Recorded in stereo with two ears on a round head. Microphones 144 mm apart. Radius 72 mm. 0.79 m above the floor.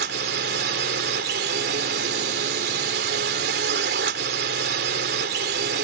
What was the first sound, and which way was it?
A drone, 70° right (ahead or behind).